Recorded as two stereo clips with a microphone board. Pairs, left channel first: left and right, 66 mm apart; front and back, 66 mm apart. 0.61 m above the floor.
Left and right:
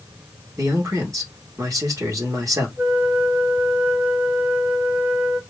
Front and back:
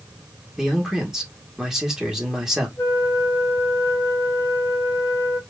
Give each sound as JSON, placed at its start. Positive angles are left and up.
{"t": 0.6, "sound": "a man speaking", "azimuth_deg": -100, "distance_m": 1.6}
{"t": 2.8, "sound": "a flute", "azimuth_deg": -25, "distance_m": 1.6}